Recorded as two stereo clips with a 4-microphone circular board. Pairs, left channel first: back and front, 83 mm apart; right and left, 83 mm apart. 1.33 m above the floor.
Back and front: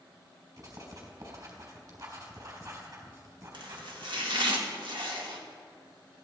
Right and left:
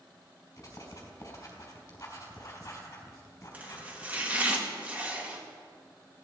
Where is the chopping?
20° left, 2 m.